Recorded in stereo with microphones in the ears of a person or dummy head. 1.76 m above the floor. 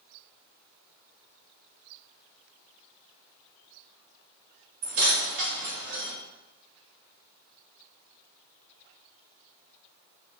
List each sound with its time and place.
4.8 s keys jangling: 45° right (ahead or behind), 1.0 m; by 6.1 s 60° right (ahead or behind), 2 m